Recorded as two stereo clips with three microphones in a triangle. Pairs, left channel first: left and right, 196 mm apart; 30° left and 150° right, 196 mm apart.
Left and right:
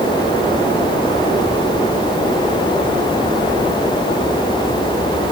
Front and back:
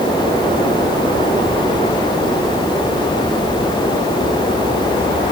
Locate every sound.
Only background noise.